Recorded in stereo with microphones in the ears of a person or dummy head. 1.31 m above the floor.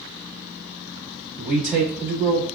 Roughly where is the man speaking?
Centre.